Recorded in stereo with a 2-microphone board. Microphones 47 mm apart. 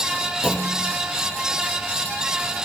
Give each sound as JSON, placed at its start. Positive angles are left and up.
{"t": 0.4, "sound": "a clunk", "side_deg": 10, "distance_m": 4.0}